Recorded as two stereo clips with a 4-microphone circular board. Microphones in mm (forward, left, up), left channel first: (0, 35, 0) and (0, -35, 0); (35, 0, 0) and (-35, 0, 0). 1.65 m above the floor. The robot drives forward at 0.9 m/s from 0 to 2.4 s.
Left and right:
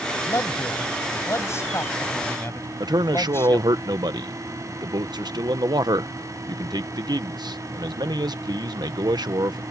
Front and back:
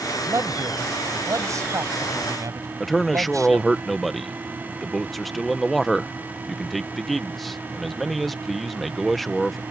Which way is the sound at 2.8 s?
90° right.